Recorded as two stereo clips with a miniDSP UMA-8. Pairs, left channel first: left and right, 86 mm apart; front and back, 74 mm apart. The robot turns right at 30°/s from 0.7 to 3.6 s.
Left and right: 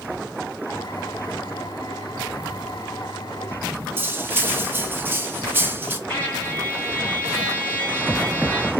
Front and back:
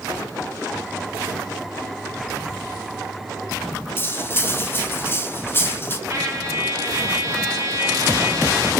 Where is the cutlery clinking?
40° right, 0.6 m.